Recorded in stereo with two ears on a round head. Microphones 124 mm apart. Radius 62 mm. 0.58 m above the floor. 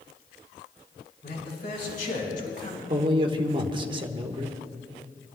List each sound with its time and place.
1.2 s a man speaking: 75° left (ahead or behind), 5 m; by 2.8 s 65° left (ahead or behind), 3 m
2.9 s a man speaking: 40° right (ahead or behind), 1.3 m